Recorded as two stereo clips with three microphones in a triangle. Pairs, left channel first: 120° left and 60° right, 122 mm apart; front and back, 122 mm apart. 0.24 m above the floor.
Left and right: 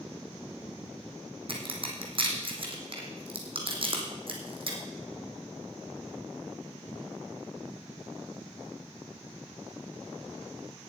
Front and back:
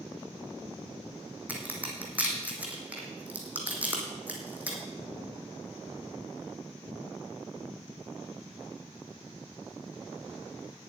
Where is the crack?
105° right, 2.5 m.